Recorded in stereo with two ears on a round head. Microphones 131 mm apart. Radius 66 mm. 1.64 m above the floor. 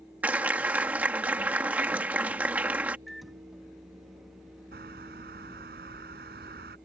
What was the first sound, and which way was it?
A clap, 10° right (ahead or behind).